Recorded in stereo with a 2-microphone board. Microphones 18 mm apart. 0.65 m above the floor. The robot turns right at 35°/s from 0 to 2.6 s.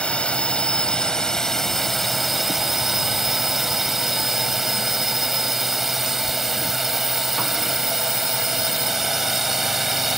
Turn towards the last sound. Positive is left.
turn(degrees=-175)